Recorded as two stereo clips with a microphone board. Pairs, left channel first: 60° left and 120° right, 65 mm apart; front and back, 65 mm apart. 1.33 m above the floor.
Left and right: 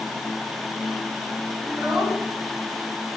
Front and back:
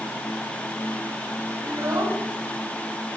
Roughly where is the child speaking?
Behind left.